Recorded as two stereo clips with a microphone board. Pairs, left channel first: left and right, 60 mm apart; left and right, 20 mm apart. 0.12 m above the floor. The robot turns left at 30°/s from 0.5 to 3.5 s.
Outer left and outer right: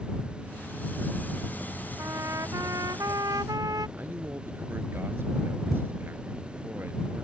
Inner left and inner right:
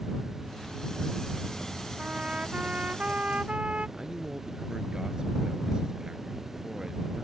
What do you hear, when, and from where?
2.0 s a trumpet: 50° right; by 3.9 s 95° right
4.0 s a man speaking: 40° right (ahead or behind)